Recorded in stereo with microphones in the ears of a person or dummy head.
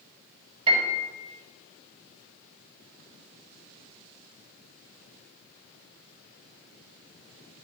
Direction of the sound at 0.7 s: 30° right (ahead or behind).